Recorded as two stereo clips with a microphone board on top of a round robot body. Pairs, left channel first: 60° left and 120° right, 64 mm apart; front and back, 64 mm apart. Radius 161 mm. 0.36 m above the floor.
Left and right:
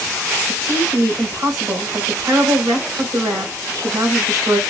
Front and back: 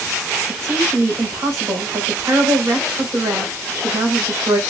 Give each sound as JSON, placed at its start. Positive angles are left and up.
{"t": 0.5, "sound": "a woman speaking", "azimuth_deg": -160, "distance_m": 3.0}